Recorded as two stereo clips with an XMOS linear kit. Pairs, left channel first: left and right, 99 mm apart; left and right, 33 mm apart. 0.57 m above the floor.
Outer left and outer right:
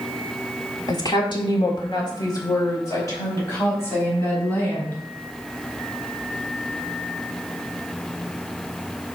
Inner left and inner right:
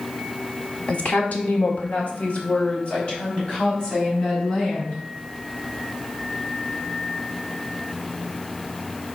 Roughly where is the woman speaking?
Left.